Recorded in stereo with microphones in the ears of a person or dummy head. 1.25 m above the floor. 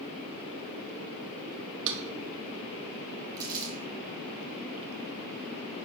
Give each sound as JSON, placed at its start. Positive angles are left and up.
{"t": 1.9, "sound": "a drawer", "side_deg": -65, "distance_m": 1.0}
{"t": 3.4, "sound": "crumpling", "side_deg": -20, "distance_m": 1.6}